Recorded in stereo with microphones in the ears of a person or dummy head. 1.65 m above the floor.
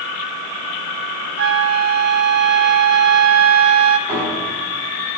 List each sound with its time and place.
1.4 s a flute: 55° right (ahead or behind), 0.9 m
4.1 s a piano: 10° right (ahead or behind), 8 m